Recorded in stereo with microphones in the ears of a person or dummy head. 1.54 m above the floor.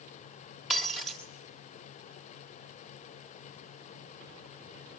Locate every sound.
0.7 s breaking glass: centre (ahead or behind), 2.0 m